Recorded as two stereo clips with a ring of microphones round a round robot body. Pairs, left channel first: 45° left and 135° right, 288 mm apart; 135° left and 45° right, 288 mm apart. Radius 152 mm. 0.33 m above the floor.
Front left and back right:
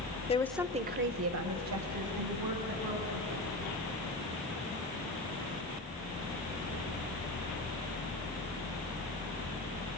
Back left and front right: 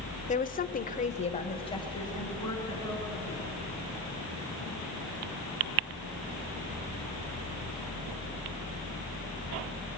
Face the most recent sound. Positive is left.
turn(degrees=-145)